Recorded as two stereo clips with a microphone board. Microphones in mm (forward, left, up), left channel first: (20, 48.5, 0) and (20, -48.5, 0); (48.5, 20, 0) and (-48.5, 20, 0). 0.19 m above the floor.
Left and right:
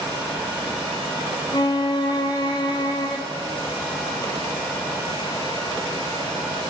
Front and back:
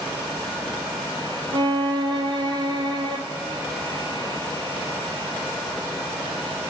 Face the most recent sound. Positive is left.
turn(degrees=135)